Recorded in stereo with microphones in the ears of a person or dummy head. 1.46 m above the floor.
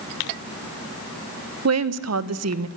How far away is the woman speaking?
About 1.5 m.